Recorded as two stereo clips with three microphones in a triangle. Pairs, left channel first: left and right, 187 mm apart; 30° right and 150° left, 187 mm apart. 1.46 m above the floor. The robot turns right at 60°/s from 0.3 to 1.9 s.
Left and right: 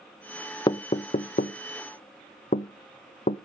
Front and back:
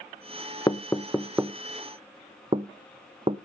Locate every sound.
0.7 s knocking: 30° left, 0.5 m; by 3.4 s 105° left, 0.5 m